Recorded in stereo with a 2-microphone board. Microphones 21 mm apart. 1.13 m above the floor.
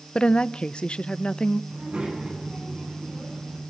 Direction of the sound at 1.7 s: 50° right (ahead or behind).